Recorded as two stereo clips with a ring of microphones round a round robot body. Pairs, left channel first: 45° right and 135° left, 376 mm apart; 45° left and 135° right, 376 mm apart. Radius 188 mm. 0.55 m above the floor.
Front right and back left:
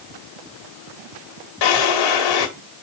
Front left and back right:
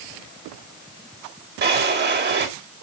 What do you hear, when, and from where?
1.6 s a drawer: 70° right, 1.7 m